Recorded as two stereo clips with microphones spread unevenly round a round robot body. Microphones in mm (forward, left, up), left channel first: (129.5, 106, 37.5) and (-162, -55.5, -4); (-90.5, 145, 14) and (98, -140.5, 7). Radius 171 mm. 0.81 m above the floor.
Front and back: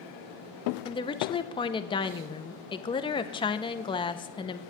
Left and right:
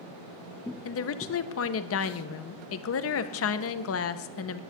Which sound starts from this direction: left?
A woman speaking, at 0.8 s.